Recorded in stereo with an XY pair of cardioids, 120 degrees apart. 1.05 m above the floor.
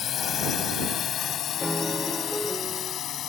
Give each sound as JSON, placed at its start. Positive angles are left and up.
{"t": 0.0, "sound": "a drone", "azimuth_deg": 50}
{"t": 1.6, "sound": "a piano", "azimuth_deg": 0}